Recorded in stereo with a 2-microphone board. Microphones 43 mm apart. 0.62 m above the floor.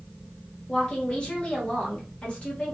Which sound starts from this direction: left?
A woman speaking, at 0.7 s.